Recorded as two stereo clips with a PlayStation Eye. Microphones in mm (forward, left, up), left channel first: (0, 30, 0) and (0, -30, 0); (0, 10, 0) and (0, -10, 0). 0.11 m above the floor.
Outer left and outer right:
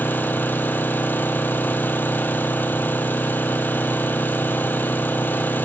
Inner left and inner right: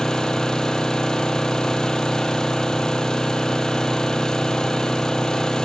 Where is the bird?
No bird in this recording.